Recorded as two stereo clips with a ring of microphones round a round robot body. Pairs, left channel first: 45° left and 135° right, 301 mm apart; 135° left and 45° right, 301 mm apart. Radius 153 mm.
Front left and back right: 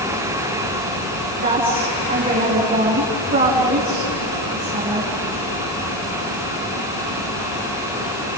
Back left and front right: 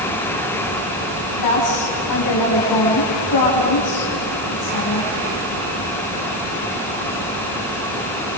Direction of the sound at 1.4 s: 160° left.